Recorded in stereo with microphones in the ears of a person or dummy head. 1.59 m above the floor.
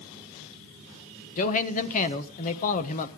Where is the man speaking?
40° left (ahead or behind), 1.3 m.